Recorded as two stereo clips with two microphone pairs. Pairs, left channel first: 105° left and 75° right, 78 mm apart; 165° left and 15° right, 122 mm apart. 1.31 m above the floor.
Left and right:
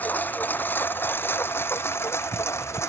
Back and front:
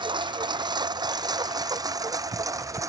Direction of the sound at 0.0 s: 35° left.